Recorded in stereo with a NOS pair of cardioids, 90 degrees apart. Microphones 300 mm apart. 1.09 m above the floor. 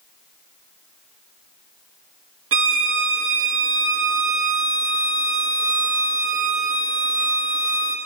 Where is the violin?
45° right, 1.1 m.